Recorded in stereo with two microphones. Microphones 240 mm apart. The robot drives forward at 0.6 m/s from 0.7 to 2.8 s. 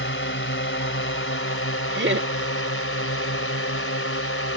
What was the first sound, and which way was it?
A drone, 55° left (ahead or behind).